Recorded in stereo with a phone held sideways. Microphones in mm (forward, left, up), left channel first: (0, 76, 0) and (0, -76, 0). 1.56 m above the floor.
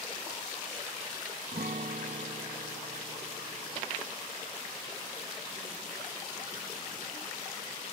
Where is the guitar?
70° right (ahead or behind).